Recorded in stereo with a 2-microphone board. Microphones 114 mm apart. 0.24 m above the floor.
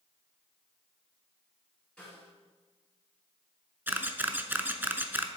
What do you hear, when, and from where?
2.0 s a snare drum: 5° left (ahead or behind), 3 m
3.9 s a camera shutter: 15° right (ahead or behind), 0.5 m